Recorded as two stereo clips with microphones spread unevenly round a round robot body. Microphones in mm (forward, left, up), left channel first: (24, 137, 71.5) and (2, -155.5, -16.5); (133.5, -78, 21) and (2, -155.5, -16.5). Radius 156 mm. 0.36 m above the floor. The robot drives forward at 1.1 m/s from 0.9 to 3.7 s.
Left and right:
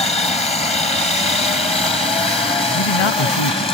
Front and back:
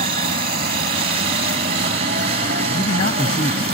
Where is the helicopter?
165° left.